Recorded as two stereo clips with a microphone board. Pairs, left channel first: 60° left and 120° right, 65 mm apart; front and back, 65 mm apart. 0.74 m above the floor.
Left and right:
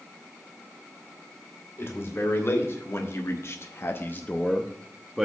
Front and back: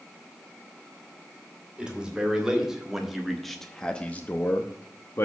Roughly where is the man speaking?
Left.